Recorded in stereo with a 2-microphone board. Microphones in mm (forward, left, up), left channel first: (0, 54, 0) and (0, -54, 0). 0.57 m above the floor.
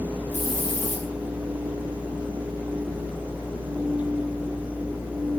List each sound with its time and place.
0.3 s a hiss: 80° left, 8.5 m